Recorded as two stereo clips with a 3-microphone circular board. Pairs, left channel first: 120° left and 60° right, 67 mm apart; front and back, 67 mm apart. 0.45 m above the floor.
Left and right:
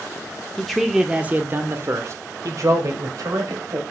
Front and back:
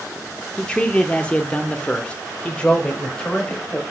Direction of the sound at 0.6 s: 45° left.